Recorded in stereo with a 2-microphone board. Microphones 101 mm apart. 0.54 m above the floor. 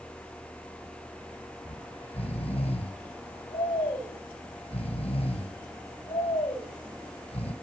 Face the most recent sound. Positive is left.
turn(degrees=70)  # may be behind; listen again after turning